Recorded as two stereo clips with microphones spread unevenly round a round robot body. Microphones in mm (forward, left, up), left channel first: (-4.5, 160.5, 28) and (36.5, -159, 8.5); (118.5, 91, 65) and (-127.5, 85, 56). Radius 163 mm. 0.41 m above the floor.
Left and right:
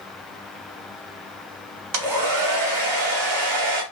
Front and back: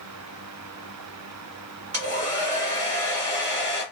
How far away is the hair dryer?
About 0.8 m.